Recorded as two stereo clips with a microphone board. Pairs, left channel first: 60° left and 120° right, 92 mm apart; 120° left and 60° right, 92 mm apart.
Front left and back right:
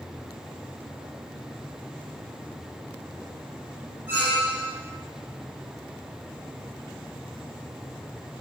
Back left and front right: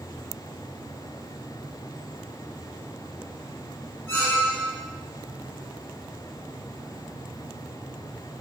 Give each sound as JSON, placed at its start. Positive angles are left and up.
{"t": 4.1, "sound": "a squeak", "azimuth_deg": 180, "distance_m": 0.6}